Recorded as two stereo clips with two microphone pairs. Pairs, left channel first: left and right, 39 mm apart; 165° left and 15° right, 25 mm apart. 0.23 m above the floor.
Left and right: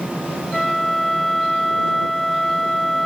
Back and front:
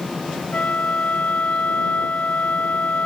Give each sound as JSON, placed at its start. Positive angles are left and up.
{"t": 0.5, "sound": "a flute", "azimuth_deg": 175}